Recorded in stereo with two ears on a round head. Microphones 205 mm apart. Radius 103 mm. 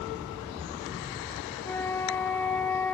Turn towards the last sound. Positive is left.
turn(degrees=10)  # may be behind; listen again after turning